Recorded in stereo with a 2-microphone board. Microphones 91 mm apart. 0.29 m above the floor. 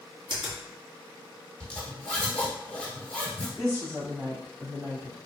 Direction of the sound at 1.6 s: 15° left (ahead or behind).